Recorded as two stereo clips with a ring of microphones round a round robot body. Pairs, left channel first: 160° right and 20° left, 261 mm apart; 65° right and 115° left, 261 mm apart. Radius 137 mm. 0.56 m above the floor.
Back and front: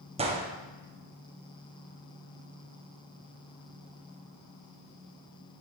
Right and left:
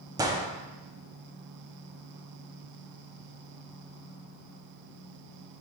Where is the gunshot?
55° left, 0.8 m.